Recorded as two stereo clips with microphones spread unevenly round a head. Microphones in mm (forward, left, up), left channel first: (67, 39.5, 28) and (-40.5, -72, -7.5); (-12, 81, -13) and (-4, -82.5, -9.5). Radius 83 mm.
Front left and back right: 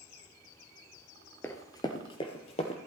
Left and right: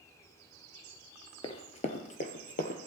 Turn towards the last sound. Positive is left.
turn(degrees=70)